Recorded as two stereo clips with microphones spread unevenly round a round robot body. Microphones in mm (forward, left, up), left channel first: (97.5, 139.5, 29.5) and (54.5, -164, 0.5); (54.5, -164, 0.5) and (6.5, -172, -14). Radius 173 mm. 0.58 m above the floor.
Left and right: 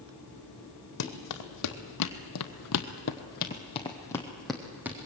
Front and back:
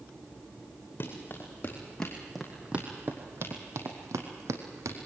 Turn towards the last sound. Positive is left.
turn(degrees=175)